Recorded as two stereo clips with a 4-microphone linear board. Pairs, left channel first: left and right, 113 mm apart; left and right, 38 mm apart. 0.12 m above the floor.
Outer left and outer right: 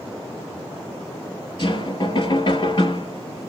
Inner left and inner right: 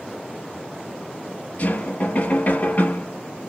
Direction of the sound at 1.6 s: 45° left (ahead or behind).